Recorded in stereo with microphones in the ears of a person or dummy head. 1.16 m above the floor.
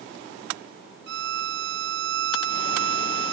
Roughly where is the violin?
Right.